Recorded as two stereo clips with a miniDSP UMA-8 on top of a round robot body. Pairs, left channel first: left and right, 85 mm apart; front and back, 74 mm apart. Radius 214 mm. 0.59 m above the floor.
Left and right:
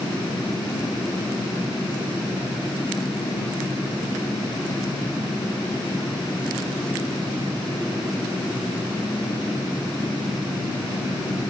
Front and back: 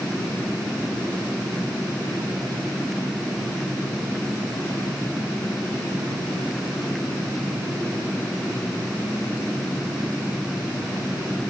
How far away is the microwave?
No microwave in this recording.